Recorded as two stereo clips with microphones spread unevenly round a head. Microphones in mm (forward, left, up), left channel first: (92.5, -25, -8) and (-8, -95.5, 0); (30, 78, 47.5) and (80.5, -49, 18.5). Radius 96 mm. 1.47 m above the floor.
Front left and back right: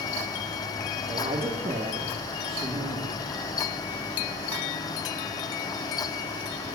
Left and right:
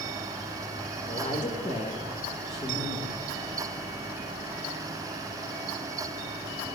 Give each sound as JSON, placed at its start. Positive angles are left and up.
{"t": 1.1, "sound": "a woman speaking", "azimuth_deg": 165, "distance_m": 1.3}